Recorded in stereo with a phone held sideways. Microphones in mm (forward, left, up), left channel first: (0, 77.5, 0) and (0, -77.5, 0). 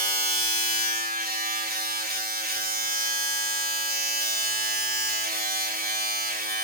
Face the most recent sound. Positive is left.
turn(degrees=-85)